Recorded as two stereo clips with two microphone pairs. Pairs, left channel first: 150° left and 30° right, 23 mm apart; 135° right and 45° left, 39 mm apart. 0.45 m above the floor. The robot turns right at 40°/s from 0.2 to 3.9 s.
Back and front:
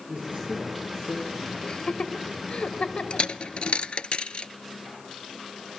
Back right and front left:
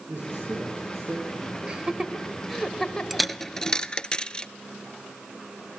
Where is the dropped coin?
130° left, 0.6 m; by 4.5 s 165° left, 0.6 m.